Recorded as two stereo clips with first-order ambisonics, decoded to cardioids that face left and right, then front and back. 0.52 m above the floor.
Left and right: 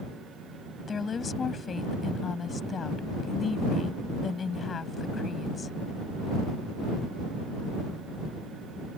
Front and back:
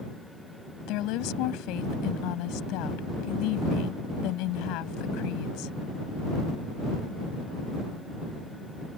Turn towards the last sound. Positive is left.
turn(degrees=20)